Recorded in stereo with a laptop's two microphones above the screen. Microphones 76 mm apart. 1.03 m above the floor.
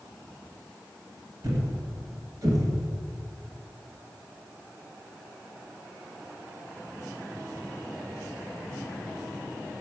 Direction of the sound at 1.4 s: 60° right (ahead or behind).